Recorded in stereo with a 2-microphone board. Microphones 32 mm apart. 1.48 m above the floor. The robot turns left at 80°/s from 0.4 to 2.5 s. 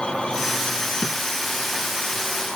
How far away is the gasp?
No gasp in this recording.